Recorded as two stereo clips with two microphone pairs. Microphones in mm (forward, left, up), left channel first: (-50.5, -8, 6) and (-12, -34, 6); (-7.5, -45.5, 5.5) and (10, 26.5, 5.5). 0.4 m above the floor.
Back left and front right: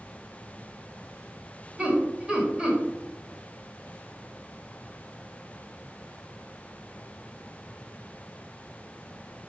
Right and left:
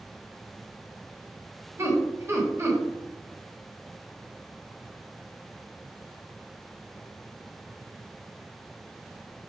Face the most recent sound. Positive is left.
turn(degrees=35)